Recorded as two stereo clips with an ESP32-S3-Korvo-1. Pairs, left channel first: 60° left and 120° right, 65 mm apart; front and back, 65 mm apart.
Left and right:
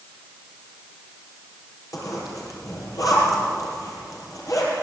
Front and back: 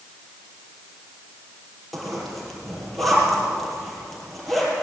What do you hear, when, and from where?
1.9 s a zipper: 90° left, 6.5 m